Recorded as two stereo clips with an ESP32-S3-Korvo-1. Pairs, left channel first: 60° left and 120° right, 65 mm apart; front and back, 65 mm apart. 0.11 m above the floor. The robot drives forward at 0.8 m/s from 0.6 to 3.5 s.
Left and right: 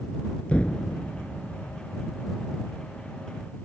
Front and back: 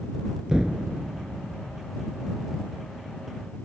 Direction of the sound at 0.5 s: 110° left.